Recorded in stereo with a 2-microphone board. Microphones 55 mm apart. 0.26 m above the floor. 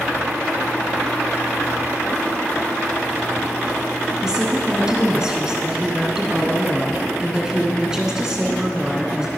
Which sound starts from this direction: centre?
A woman speaking, at 4.2 s.